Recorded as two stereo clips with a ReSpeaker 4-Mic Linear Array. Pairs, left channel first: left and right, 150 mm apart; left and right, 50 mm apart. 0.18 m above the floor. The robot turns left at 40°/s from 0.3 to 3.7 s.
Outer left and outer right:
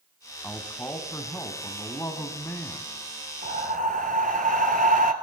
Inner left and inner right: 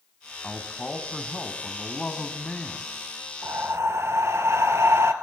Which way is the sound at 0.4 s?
10° left (ahead or behind).